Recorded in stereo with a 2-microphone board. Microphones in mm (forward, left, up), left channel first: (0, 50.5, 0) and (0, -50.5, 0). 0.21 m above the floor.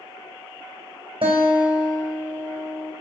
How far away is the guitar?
About 2.5 m.